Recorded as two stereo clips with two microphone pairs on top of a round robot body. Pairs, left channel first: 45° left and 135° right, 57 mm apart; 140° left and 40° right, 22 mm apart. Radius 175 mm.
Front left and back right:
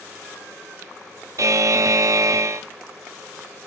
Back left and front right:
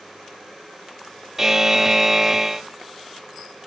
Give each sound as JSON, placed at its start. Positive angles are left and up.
{"t": 1.4, "sound": "a buzzer", "azimuth_deg": -110, "distance_m": 0.5}